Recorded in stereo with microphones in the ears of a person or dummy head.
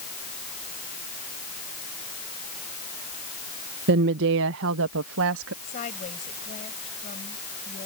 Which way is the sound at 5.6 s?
40° left (ahead or behind).